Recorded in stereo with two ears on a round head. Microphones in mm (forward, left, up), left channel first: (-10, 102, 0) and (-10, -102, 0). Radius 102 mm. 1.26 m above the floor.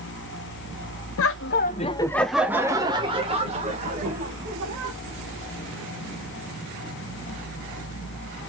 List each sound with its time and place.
1.2 s laughter: 65° left (ahead or behind), 0.6 m; by 5.0 s 35° right (ahead or behind), 2 m